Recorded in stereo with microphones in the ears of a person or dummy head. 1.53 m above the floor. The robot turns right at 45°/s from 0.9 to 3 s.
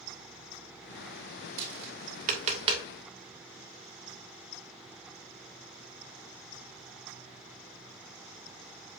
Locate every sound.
1.6 s tapping: 65° right (ahead or behind), 2.5 m; by 2.9 s 20° right (ahead or behind), 2.5 m